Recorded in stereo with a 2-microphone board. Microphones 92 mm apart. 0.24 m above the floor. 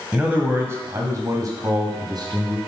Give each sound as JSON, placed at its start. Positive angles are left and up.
{"t": 0.1, "sound": "a man speaking", "side_deg": -15, "distance_m": 1.6}